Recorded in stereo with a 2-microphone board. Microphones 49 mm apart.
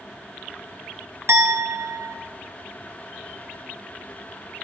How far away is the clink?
About 0.6 m.